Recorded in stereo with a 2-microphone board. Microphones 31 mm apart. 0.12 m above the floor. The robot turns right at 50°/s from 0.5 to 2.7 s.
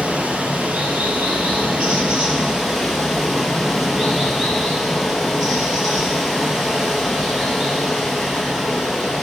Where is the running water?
115° right, 1.9 m; by 9.2 s 5° right, 1.9 m.